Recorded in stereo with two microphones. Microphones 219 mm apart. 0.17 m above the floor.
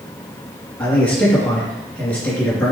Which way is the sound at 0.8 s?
5° left (ahead or behind).